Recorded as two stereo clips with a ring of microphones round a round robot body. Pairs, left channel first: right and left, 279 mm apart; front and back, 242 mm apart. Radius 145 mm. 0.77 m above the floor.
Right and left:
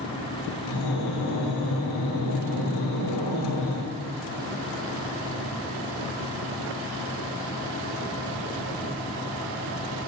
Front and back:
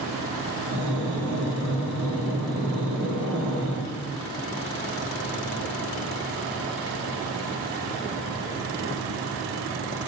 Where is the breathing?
90° right, 5.5 m.